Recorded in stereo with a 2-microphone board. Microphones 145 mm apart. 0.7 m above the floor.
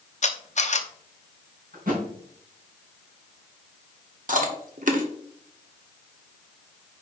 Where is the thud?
80° right, 3.5 m.